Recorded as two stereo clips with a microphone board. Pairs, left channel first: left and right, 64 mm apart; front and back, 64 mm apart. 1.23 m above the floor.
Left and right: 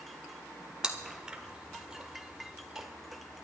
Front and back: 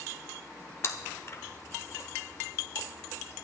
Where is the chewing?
20° right, 1.2 m.